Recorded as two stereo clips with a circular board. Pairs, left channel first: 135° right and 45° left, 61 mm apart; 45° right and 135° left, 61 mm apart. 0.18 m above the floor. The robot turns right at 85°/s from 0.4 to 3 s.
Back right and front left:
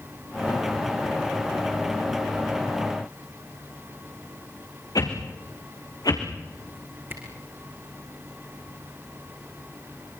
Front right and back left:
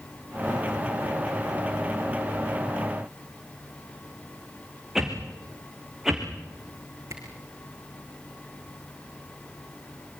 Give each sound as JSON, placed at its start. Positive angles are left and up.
{"t": 5.0, "sound": "a whoosh", "azimuth_deg": -140, "distance_m": 3.5}
{"t": 7.1, "sound": "a camera shutter", "azimuth_deg": 95, "distance_m": 4.5}